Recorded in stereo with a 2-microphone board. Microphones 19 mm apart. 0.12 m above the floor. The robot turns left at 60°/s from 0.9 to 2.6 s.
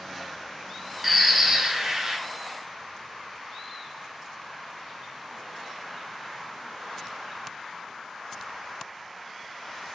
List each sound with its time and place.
1.0 s a bird: 10° right, 0.5 m; by 2.2 s 80° right, 0.5 m